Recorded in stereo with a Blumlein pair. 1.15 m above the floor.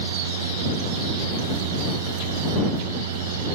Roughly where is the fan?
Ahead right.